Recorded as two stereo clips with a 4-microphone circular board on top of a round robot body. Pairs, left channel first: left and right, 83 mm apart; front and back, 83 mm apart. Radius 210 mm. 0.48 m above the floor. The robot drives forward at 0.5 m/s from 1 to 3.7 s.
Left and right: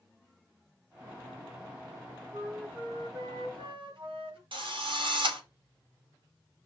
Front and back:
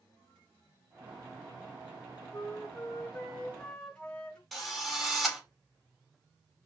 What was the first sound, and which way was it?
A flute, 70° right.